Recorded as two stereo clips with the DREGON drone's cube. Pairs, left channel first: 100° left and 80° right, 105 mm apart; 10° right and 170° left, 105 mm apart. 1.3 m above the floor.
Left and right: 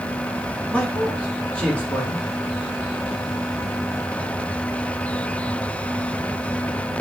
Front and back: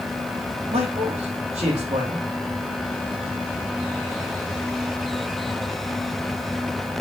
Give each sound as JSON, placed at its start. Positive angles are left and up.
{"t": 0.7, "sound": "a man speaking", "azimuth_deg": 180, "distance_m": 2.5}